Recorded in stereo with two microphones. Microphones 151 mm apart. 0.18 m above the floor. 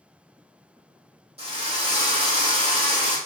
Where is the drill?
45° right (ahead or behind), 4.5 m.